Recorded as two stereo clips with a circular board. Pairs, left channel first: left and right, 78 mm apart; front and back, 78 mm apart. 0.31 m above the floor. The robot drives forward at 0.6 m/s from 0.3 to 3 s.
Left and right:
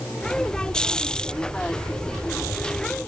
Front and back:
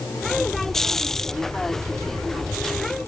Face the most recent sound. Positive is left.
No sound to turn to.